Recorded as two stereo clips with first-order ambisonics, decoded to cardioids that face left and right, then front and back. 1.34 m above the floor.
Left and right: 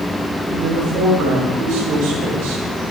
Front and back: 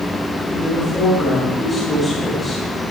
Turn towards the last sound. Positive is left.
turn(degrees=-80)